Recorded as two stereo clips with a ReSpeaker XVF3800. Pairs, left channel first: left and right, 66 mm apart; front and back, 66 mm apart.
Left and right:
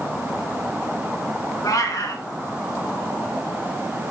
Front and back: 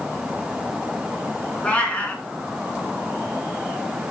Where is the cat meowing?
70° left, 1.7 m.